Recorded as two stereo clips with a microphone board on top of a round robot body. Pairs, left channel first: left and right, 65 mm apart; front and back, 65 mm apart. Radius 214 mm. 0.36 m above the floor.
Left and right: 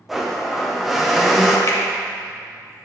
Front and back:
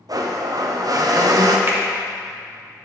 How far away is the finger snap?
About 1.2 m.